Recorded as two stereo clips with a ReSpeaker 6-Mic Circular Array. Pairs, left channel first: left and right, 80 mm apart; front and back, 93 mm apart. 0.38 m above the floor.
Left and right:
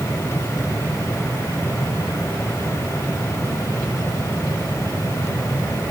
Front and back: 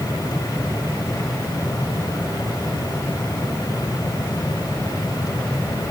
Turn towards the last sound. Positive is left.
No sound to turn to.